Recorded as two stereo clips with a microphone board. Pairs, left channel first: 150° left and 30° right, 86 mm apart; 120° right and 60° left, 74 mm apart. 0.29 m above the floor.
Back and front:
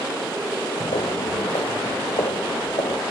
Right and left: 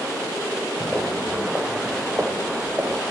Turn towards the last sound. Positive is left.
turn(degrees=130)